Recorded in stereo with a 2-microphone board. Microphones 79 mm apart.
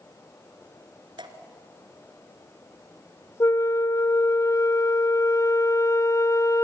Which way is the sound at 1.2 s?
85° right.